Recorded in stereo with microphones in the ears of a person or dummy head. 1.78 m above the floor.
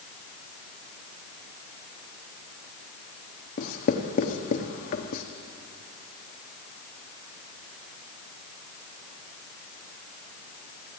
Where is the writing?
50° left (ahead or behind), 1.1 m.